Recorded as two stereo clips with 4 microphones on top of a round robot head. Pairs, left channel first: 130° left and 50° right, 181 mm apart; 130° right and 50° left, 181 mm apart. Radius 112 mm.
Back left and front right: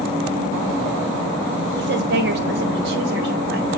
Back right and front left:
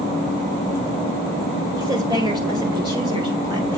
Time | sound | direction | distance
1.8 | a woman speaking | 20° right | 1.6 m